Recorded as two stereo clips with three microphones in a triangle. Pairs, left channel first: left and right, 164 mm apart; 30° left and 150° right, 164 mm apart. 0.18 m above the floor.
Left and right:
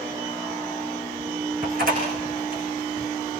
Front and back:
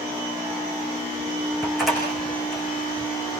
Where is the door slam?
60° right, 9.5 m.